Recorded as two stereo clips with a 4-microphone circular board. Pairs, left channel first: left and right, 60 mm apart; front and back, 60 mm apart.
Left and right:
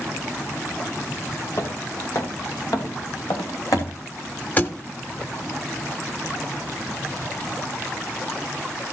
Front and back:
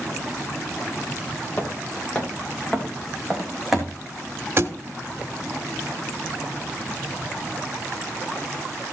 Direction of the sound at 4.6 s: 145° left.